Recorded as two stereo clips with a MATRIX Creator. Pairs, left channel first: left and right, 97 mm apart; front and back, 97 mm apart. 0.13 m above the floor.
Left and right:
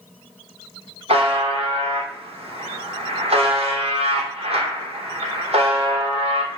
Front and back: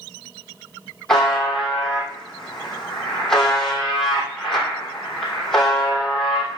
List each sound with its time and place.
1.1 s a buzzer: 85° right, 2.5 m